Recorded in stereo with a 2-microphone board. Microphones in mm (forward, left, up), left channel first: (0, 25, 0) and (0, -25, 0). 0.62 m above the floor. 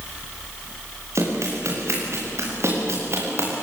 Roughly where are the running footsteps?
Right.